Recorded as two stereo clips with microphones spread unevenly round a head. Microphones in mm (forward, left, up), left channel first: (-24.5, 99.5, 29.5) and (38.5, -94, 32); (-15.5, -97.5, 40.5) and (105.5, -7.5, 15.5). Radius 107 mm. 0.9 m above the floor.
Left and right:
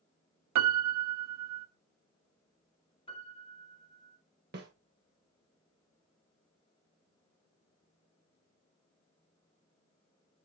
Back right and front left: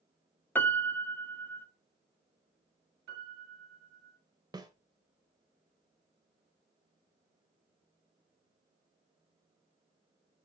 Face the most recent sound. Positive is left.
turn(degrees=-30)